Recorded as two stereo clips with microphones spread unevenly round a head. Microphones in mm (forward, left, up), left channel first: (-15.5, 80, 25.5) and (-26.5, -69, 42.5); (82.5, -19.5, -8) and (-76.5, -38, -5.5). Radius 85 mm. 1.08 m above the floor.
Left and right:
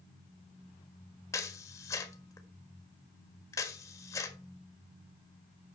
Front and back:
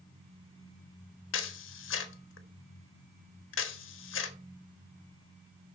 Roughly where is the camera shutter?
Ahead.